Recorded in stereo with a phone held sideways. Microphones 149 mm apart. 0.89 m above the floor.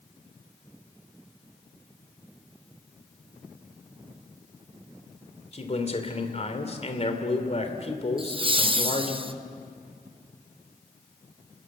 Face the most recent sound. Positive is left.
turn(degrees=-35)  # may be behind; listen again after turning